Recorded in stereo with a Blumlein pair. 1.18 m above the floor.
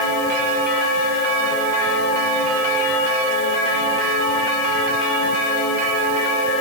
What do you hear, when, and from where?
Only background noise.